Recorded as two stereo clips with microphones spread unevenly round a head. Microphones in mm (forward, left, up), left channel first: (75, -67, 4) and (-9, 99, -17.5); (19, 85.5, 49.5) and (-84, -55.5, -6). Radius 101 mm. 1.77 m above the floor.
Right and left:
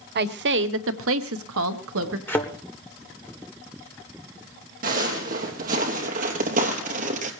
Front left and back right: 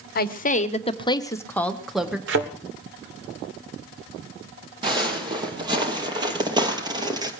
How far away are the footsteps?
About 3.5 m.